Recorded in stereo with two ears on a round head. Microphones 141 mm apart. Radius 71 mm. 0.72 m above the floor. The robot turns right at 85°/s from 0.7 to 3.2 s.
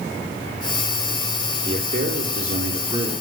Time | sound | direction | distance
1.6 | a man speaking | 140° right | 2.5 m